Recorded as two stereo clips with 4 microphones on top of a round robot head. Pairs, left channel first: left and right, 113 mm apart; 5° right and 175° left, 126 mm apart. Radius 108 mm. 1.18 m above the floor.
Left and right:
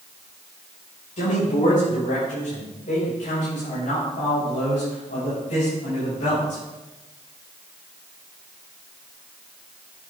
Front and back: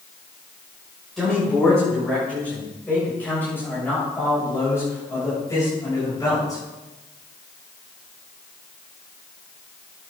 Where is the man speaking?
80° left, 6.5 m; by 6.6 s 55° left, 7 m.